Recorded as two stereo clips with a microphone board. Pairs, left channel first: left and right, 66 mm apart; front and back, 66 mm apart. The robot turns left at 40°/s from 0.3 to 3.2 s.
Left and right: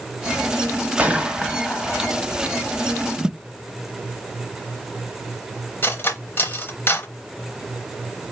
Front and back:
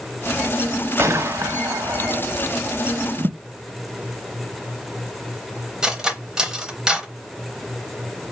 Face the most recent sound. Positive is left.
turn(degrees=110)